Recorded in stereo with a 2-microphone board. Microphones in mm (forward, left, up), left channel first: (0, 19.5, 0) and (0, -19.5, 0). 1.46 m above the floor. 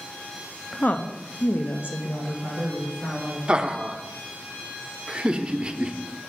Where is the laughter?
20° right (ahead or behind), 0.7 m.